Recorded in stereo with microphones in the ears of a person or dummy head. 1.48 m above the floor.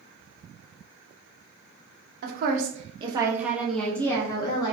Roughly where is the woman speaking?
Right.